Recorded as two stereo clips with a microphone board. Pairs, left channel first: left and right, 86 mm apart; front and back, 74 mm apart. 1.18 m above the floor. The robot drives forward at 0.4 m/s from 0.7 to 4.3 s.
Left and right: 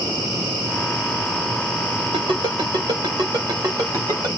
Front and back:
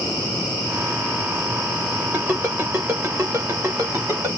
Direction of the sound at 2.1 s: 110° right.